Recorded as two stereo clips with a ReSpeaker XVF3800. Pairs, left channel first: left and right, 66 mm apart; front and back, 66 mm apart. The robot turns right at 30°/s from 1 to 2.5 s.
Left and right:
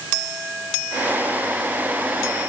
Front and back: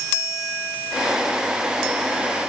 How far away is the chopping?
No chopping in this recording.